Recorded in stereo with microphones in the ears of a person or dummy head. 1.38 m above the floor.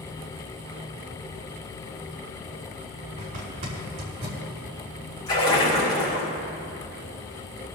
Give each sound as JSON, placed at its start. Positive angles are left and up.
{"t": 3.2, "sound": "a zipper", "side_deg": -40, "distance_m": 5.0}
{"t": 5.3, "sound": "a splash", "side_deg": 25, "distance_m": 4.5}